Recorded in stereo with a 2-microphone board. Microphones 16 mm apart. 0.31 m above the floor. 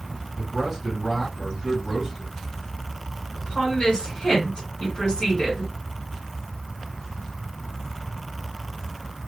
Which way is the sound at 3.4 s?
35° left (ahead or behind).